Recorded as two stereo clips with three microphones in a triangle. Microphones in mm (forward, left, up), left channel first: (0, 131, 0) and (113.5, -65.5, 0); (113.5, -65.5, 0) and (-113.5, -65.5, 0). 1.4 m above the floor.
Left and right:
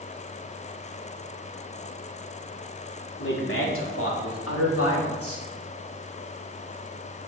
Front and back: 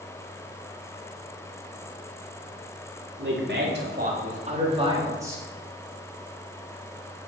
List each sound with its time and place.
3.2 s a man speaking: 150° left, 4 m; by 5.5 s 100° left, 4 m